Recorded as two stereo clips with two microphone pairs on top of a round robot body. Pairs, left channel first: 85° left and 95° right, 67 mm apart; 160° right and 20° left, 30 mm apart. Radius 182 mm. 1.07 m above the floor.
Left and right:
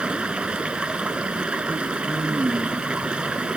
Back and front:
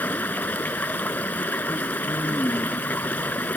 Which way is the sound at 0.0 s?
170° right.